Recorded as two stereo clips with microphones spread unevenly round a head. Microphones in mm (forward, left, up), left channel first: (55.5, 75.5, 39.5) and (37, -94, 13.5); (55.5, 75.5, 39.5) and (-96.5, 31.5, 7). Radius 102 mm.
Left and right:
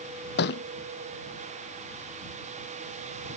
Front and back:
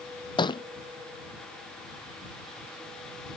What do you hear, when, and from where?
0.4 s a thud: 70° left